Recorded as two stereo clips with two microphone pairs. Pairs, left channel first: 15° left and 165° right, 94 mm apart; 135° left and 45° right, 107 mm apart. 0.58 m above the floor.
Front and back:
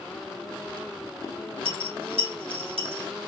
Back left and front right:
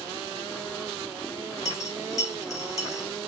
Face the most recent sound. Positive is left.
turn(degrees=-170)